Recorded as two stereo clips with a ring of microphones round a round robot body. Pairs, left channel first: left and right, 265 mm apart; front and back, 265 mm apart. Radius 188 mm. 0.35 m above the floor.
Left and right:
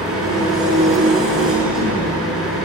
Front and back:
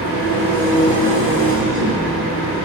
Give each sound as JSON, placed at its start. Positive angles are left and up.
{"t": 0.0, "sound": "an engine running", "azimuth_deg": 0, "distance_m": 5.0}